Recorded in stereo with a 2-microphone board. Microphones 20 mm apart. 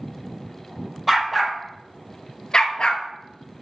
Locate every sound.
1.1 s a dog barking: 10° right (ahead or behind), 1.8 m; by 3.0 s 50° left (ahead or behind), 1.1 m